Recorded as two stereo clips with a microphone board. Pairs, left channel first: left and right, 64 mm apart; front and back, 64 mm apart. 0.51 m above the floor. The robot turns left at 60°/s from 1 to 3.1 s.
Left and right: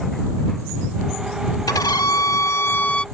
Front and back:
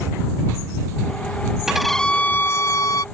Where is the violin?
100° left; by 3.0 s 15° left.